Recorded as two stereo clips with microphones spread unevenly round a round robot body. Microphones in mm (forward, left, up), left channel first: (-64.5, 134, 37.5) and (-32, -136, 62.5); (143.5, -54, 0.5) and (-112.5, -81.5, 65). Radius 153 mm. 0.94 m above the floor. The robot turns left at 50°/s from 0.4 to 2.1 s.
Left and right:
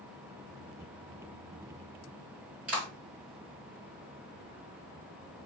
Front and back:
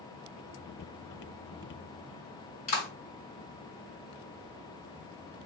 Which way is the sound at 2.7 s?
5° left.